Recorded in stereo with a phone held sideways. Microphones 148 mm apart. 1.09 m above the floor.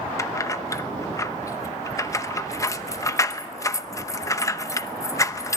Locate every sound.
0.2 s keys jangling: 20° left (ahead or behind), 0.8 m